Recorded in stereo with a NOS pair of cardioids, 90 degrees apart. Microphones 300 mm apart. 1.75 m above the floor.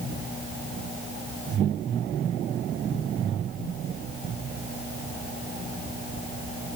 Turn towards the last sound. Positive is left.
No sound to turn to.